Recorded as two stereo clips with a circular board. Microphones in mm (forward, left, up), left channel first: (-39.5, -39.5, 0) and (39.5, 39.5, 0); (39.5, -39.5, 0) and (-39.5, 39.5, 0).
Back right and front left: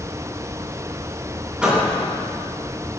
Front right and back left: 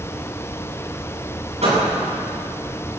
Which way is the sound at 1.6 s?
130° left.